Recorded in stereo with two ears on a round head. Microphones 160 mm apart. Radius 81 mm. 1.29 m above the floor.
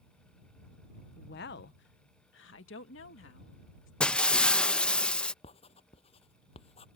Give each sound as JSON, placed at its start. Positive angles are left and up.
{"t": 1.2, "sound": "a woman speaking", "side_deg": 55}
{"t": 4.0, "sound": "breaking glass", "side_deg": 5}
{"t": 5.4, "sound": "writing", "side_deg": 30}